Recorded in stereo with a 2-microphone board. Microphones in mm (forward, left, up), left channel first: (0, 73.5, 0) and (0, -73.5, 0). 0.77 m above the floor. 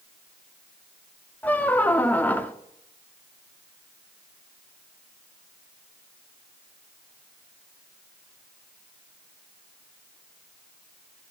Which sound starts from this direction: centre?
A squeak, at 1.4 s.